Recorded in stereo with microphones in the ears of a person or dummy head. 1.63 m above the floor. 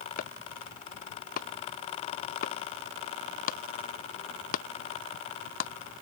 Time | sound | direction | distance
0.2 | chopping | 55° left (ahead or behind) | ?